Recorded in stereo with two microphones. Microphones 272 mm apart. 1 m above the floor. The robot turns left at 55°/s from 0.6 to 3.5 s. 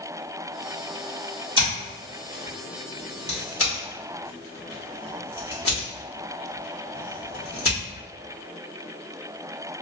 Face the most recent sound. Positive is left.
turn(degrees=55)  # may be behind; listen again after turning